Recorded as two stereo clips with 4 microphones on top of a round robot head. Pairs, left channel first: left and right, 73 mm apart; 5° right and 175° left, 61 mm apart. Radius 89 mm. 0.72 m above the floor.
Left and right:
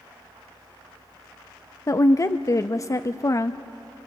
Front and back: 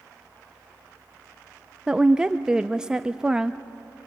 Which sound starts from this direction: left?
A woman speaking, at 1.9 s.